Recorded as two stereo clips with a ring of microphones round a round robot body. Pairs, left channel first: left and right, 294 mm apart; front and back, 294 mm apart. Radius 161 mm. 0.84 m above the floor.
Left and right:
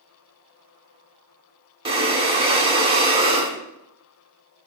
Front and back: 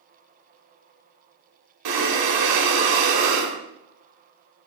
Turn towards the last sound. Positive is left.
turn(degrees=-165)